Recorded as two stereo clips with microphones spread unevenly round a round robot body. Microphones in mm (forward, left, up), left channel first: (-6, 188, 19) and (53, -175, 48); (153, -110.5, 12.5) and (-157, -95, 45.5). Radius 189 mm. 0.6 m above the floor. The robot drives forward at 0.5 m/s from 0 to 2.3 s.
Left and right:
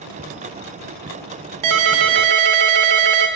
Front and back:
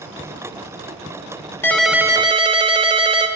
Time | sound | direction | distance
1.6 | a ringtone | 85° right | 0.9 m